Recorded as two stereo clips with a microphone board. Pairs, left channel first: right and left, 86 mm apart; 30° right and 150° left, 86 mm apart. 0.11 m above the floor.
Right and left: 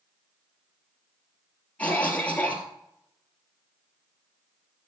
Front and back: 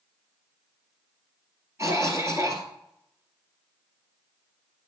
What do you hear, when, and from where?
1.8 s a cough: 160° right, 2.5 m